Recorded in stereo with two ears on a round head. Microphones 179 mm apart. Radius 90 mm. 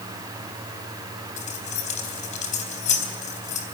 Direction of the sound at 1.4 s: 35° left (ahead or behind).